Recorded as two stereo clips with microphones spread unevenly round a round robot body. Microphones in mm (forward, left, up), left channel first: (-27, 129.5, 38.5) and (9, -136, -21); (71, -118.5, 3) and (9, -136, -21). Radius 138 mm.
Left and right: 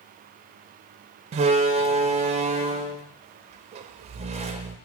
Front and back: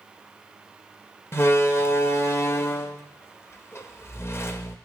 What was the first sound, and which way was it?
A door slam, 45° right.